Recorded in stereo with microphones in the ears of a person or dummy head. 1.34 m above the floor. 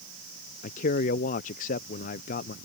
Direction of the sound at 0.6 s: 40° left (ahead or behind).